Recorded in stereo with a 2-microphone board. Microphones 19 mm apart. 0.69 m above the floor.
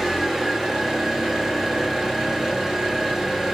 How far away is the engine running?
About 1.5 m.